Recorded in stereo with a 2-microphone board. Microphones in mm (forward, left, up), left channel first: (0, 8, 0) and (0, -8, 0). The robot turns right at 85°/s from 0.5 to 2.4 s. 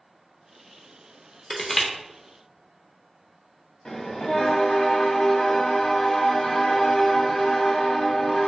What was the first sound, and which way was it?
Crushing, 10° left (ahead or behind).